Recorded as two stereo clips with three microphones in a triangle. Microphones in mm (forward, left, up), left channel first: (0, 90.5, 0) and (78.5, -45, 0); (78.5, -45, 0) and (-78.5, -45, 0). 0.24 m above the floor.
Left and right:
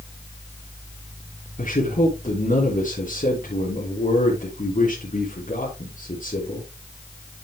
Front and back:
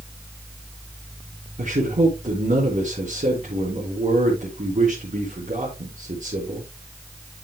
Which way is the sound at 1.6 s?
145° left.